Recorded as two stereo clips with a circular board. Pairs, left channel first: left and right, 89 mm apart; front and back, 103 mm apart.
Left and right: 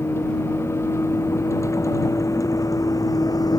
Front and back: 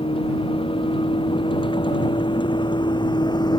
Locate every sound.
0.0 s a vehicle: 30° left; by 3.6 s 45° left